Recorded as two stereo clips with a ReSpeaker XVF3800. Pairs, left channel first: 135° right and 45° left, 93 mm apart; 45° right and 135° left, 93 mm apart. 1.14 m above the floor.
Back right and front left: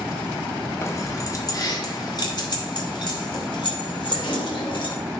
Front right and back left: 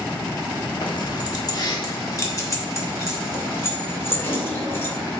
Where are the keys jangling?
80° right, 1.2 m; by 5.0 s 110° right, 3 m.